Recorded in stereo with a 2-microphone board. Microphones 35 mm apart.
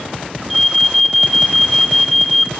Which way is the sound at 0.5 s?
5° left (ahead or behind).